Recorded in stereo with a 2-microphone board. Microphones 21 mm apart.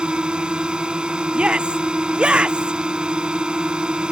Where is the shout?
65° right (ahead or behind).